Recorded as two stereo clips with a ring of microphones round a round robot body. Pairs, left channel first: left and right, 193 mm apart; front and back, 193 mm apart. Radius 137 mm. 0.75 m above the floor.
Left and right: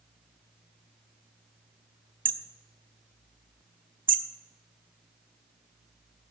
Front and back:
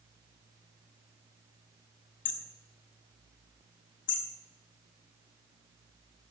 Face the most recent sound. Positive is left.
turn(degrees=-45)